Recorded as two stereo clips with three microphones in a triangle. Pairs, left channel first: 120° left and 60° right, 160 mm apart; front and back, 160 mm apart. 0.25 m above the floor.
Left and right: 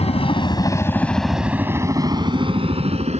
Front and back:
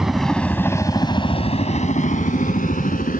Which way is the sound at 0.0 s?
95° left.